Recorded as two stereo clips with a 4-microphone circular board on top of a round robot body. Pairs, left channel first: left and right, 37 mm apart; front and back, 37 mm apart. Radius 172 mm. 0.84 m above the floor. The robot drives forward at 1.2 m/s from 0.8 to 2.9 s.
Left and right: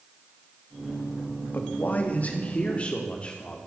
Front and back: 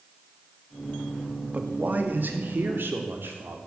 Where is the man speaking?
130° left, 2 m; by 3.6 s 150° left, 3.5 m.